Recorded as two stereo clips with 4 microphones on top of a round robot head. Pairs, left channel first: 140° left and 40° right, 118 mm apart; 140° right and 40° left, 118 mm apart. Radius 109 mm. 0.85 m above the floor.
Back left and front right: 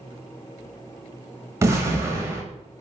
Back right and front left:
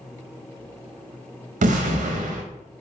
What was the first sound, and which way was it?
An explosion, 25° left.